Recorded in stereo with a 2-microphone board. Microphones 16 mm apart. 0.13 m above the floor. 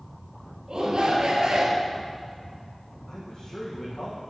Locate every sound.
0.7 s a shout: 50° right (ahead or behind), 2.5 m; by 1.9 s 40° right (ahead or behind), 2.5 m
3.1 s a man speaking: 45° left (ahead or behind), 5.5 m